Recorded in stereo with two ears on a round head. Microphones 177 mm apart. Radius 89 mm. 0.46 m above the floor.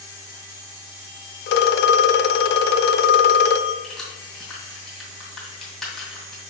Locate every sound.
1.5 s a phone ringing: 55° left (ahead or behind), 0.5 m
3.8 s keys jangling: centre (ahead or behind), 2.5 m